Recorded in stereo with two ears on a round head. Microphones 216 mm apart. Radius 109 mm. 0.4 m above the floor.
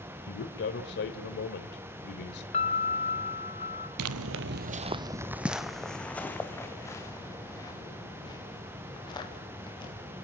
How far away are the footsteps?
About 0.9 m.